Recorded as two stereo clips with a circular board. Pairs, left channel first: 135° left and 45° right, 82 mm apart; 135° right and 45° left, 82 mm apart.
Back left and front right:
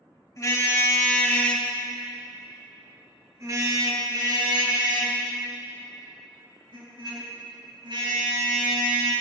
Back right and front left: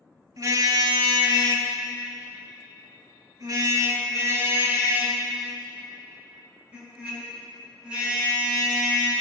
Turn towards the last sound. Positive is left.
turn(degrees=-35)